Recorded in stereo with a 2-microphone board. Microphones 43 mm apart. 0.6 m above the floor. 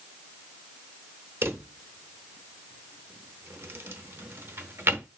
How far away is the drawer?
About 0.7 m.